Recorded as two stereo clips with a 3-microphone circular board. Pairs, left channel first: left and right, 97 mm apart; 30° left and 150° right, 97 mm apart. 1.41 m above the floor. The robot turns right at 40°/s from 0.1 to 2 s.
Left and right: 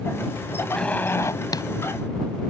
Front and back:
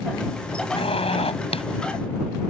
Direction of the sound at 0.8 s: 10° left.